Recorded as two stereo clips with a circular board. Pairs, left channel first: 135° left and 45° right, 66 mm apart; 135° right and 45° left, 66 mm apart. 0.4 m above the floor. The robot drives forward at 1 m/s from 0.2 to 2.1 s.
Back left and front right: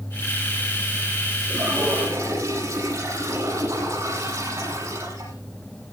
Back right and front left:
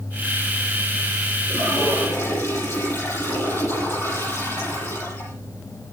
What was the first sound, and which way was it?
A toilet flushing, 80° right.